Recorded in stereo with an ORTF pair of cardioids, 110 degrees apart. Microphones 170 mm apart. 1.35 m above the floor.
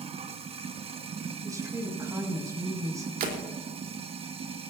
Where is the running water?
35° right, 0.9 m.